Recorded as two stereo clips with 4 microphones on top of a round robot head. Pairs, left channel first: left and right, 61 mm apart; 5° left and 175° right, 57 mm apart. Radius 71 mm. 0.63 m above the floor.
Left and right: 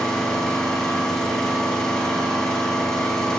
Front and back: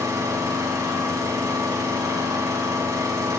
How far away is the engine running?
About 4 m.